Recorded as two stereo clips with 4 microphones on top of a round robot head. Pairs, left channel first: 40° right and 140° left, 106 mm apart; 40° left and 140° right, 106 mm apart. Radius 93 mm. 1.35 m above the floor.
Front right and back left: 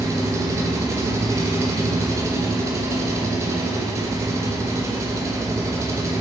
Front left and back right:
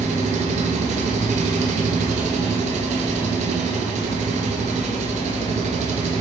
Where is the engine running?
150° right, 1.5 m.